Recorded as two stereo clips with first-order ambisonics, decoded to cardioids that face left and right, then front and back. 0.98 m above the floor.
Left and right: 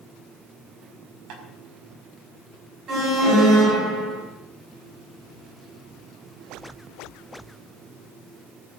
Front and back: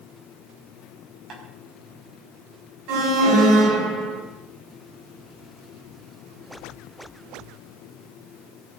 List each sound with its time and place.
1.3 s tapping: 120° right, 5.5 m
2.9 s an alarm: 145° right, 7 m